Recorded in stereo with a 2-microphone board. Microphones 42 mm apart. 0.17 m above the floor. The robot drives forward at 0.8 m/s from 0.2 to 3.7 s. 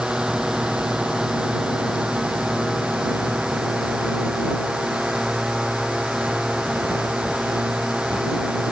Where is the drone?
15° right (ahead or behind); by 8.7 s 10° right (ahead or behind).